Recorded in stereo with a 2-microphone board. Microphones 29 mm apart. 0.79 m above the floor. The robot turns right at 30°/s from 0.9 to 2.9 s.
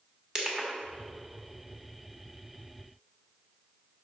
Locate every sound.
0.3 s crushing: 20° right (ahead or behind), 1.4 m